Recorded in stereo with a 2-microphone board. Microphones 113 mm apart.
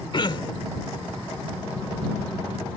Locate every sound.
0.1 s throat clearing: 45° left (ahead or behind)